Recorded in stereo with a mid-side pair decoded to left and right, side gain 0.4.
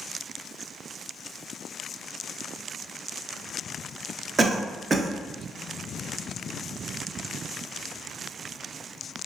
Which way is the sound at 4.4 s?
40° right.